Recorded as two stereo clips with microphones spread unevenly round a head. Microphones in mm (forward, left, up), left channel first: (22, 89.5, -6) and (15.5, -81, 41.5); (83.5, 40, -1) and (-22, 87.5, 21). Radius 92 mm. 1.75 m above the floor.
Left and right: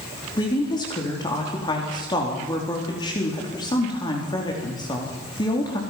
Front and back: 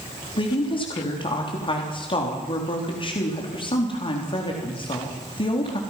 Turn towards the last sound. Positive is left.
turn(degrees=20)